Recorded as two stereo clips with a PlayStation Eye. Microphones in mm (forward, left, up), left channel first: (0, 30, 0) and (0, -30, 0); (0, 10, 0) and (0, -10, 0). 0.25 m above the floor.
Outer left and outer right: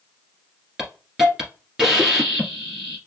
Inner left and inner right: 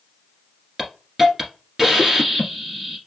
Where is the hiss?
5° right (ahead or behind), 1.5 m.